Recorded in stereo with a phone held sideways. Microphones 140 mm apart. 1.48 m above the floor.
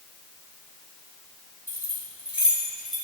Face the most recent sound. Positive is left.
turn(degrees=0)  # may be behind; listen again after turning